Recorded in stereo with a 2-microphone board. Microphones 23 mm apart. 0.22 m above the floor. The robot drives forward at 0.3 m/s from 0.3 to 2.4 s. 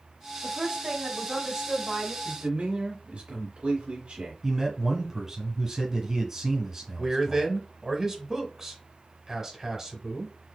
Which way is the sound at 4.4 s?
20° right (ahead or behind).